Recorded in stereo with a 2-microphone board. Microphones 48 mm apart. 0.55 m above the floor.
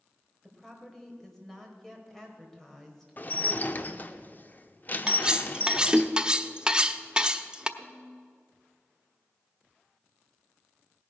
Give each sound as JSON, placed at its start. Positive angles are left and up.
{"t": 0.4, "sound": "a woman speaking", "side_deg": 5, "distance_m": 2.5}
{"t": 3.2, "sound": "dishes clattering", "side_deg": 35, "distance_m": 0.8}
{"t": 5.1, "sound": "cutlery clinking", "side_deg": -20, "distance_m": 0.7}
{"t": 7.8, "sound": "a snare drum", "side_deg": 15, "distance_m": 3.0}